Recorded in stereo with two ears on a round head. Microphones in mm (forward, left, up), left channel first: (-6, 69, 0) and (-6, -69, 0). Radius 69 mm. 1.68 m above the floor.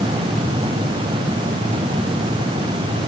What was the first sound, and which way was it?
Only background noise.